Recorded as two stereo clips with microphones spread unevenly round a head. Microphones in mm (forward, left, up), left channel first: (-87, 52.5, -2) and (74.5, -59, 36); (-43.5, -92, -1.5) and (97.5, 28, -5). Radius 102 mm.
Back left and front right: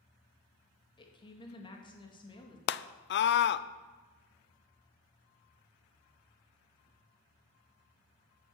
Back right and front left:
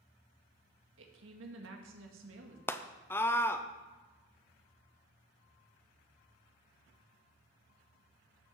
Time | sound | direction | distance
1.0 | a woman speaking | 75° left | 2 m
2.7 | a scream | 140° left | 0.6 m